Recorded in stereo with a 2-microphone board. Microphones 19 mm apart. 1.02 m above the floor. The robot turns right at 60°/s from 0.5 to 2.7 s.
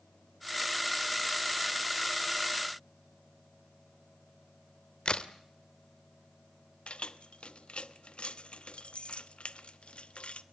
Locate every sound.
5.0 s a crack: 50° left (ahead or behind), 1.5 m
6.9 s keys jangling: 70° left (ahead or behind), 1.1 m